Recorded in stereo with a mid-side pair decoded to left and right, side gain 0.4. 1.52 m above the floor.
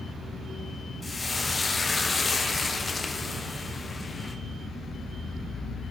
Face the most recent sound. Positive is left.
turn(degrees=30)